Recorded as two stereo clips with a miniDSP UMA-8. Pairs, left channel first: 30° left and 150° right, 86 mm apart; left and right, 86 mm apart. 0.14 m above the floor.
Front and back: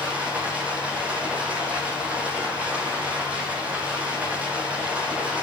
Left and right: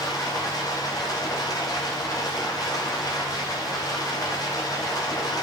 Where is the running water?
135° left, 9.5 m.